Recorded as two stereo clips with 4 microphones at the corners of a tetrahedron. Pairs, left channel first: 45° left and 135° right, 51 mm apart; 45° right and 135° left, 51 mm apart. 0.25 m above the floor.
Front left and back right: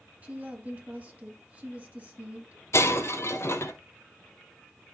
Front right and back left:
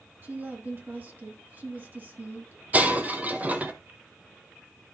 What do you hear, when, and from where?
0.2 s a woman speaking: 175° left, 2 m
2.7 s breaking glass: 75° left, 0.9 m